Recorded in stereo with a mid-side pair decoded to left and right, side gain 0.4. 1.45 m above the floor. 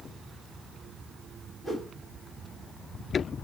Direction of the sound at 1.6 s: 25° left.